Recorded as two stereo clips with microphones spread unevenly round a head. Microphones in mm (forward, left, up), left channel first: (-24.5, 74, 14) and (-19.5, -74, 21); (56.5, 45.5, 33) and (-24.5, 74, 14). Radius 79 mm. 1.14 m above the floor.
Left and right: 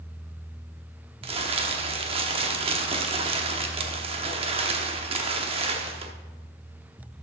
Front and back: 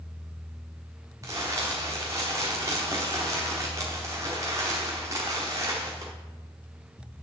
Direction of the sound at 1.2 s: 125° right.